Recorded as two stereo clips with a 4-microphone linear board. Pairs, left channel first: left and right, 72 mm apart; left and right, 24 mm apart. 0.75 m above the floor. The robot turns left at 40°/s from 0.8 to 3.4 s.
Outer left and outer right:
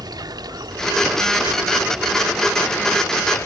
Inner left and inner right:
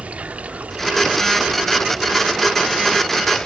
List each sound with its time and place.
0.0 s running water: 115° right, 0.9 m; by 3.5 s 140° left, 0.9 m